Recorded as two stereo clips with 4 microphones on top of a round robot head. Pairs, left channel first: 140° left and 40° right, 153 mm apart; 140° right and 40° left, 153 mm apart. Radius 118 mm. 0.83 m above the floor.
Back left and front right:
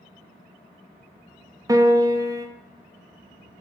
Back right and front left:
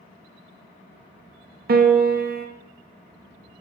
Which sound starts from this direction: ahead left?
A piano, at 1.7 s.